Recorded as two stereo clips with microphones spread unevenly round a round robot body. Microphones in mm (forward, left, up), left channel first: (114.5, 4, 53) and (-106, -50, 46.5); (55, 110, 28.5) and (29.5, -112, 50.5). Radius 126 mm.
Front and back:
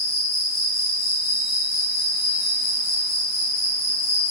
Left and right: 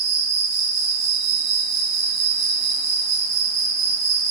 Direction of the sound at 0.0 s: 85° right.